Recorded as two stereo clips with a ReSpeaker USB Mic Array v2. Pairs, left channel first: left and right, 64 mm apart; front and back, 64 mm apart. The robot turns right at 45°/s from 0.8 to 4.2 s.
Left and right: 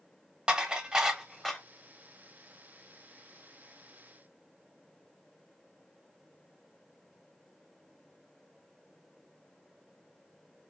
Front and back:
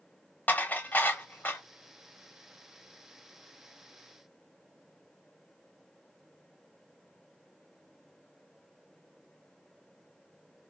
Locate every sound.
0.5 s dishes clattering: 25° right, 0.6 m; by 1.6 s 15° left, 0.6 m